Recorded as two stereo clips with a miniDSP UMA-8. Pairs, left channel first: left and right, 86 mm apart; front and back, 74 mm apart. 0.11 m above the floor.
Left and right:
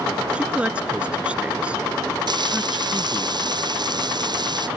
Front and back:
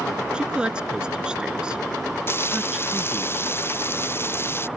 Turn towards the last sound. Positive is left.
turn(degrees=-55)